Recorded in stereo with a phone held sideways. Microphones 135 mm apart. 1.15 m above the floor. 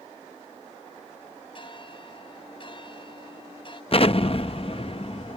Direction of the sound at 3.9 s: 45° left (ahead or behind).